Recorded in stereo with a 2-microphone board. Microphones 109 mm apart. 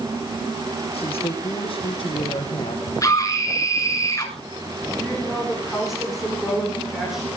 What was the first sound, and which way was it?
A woman speaking, 65° left (ahead or behind).